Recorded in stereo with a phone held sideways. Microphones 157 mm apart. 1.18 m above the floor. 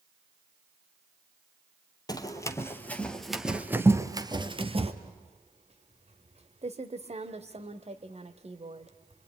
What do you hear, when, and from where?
2.1 s running footsteps: 25° left (ahead or behind), 1.6 m; by 4.9 s 40° right (ahead or behind), 1.4 m
5.0 s typing on a keyboard: 40° right (ahead or behind), 1.1 m